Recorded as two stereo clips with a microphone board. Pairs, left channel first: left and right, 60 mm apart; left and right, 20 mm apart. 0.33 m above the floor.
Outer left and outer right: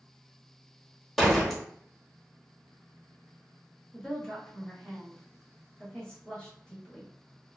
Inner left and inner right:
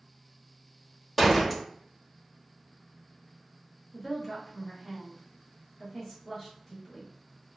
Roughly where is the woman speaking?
Centre.